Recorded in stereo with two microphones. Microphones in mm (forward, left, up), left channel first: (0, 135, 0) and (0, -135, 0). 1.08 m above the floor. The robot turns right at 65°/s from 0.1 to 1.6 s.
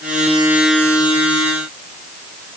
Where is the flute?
No flute in this recording.